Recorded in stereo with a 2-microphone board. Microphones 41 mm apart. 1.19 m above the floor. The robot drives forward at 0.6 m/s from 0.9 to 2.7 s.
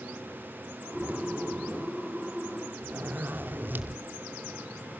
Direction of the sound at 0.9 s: 40° right (ahead or behind).